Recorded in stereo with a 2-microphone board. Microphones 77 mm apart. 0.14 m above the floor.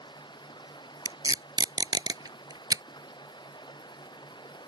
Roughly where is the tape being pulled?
Right.